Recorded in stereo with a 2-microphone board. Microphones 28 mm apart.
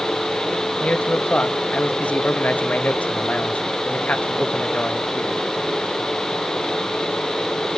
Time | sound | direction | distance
0.8 | a man speaking | 60° left (ahead or behind) | 1.5 m